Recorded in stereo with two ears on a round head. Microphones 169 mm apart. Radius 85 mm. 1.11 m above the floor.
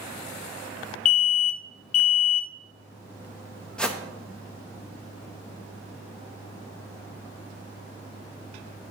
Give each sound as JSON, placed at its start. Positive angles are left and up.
{"t": 1.1, "sound": "an alarm", "side_deg": 80, "distance_m": 0.6}
{"t": 3.8, "sound": "a whoosh", "side_deg": 5, "distance_m": 0.6}